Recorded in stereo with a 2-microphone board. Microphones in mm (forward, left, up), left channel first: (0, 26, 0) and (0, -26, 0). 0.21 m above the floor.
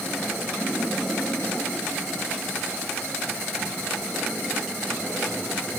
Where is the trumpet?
No trumpet in this recording.